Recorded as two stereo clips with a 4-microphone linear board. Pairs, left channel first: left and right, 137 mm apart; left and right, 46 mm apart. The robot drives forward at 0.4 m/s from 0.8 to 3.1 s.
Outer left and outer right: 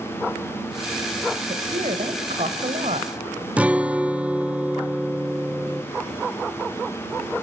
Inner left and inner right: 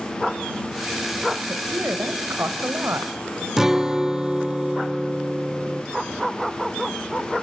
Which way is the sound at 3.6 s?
10° right (ahead or behind).